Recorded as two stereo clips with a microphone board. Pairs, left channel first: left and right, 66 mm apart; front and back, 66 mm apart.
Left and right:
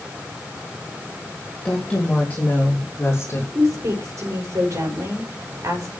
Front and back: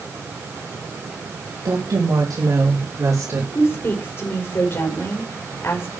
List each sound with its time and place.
1.6 s a woman speaking: 165° left, 3.5 m; by 3.5 s 135° left, 3.5 m
3.5 s a woman speaking: 55° right, 4.5 m